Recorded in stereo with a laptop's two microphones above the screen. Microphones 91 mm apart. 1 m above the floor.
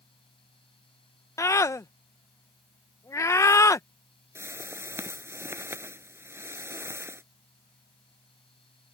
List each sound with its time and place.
0.0 s a fan: 85° left
1.4 s a scream: 35° left (ahead or behind)
4.3 s a whoosh: 25° right (ahead or behind)